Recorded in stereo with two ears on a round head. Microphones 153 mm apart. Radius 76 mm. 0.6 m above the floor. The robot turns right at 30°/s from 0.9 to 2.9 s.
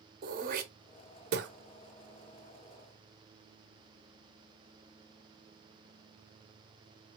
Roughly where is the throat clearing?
Right.